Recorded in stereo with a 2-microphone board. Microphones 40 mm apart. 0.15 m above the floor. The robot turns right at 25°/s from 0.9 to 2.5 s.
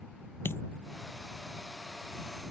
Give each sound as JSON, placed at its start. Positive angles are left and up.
{"t": 0.5, "sound": "a dropped coin", "side_deg": 75}